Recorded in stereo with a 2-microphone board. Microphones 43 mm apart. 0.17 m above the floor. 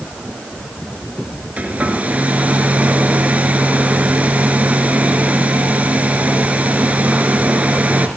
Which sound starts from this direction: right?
A hair dryer, at 1.6 s.